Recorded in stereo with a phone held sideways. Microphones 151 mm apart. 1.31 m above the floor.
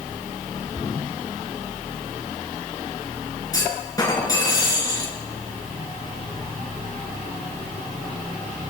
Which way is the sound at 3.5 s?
25° left (ahead or behind).